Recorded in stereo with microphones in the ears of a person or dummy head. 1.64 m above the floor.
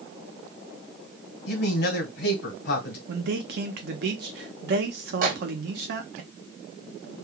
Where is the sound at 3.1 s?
55° right (ahead or behind), 0.9 m.